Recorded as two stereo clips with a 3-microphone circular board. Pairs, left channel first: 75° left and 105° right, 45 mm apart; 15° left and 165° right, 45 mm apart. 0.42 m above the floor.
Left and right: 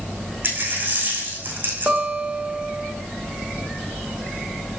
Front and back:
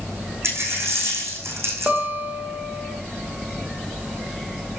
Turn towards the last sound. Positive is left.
turn(degrees=-140)